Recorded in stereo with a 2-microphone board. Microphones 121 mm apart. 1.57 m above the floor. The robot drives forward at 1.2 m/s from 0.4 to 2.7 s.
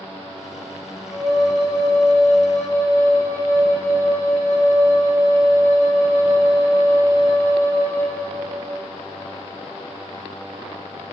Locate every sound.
1.1 s a flute: 35° left (ahead or behind), 2.5 m; by 8.2 s 75° left (ahead or behind), 1.7 m